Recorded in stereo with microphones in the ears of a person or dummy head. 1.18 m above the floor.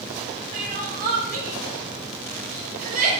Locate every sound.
0.5 s crying: 45° right (ahead or behind), 1.3 m